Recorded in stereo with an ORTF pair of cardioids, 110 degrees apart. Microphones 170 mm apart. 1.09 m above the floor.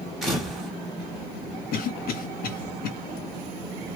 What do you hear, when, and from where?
0.2 s a camera shutter: straight ahead, 1.6 m
1.7 s a cough: 65° left, 1.1 m